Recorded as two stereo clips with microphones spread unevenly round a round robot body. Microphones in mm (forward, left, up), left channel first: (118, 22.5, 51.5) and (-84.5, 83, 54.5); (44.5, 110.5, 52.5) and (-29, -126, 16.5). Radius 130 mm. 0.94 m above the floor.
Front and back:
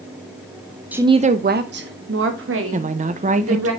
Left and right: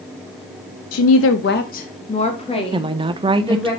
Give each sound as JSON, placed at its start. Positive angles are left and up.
{"t": 0.9, "sound": "a woman speaking", "azimuth_deg": 80, "distance_m": 0.6}
{"t": 2.7, "sound": "a woman speaking", "azimuth_deg": -160, "distance_m": 0.7}